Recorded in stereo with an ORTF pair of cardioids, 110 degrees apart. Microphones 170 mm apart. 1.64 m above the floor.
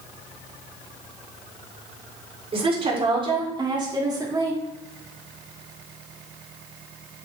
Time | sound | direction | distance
2.5 | a woman speaking | 35° right | 4.5 m